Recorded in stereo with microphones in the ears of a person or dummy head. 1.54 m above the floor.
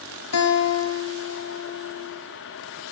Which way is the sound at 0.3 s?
80° left.